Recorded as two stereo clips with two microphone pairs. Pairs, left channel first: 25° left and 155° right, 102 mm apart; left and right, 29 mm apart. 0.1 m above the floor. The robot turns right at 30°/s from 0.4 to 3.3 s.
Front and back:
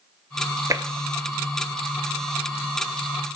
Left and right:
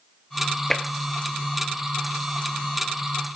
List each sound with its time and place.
0.7 s tapping: 155° left, 0.7 m; by 0.8 s 160° left, 0.7 m